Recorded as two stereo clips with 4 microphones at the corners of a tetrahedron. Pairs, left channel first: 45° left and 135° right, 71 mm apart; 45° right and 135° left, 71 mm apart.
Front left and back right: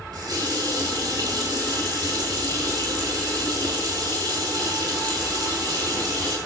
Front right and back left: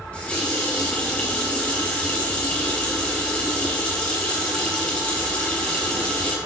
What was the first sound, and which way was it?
A running tap, 120° right.